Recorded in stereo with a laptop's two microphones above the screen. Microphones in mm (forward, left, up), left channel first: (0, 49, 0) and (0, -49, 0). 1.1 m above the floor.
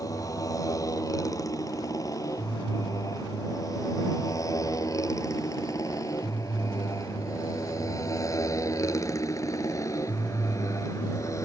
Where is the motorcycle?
35° left (ahead or behind); by 11.4 s 30° left (ahead or behind).